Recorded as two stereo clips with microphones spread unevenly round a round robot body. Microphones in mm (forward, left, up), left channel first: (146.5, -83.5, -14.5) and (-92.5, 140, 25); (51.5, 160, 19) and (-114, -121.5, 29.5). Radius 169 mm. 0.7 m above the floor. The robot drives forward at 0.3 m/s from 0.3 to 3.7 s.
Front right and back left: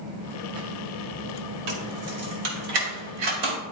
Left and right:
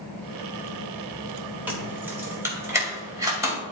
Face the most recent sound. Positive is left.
turn(degrees=160)